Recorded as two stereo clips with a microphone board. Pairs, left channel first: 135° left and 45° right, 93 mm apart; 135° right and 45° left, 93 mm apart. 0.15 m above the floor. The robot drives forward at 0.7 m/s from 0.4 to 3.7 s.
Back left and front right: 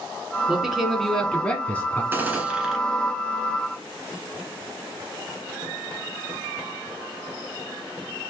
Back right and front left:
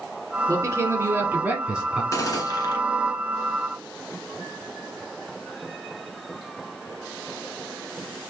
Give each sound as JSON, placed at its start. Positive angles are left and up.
{"t": 0.5, "sound": "a man speaking", "azimuth_deg": 30, "distance_m": 1.6}
{"t": 2.1, "sound": "a gunshot", "azimuth_deg": -100, "distance_m": 1.1}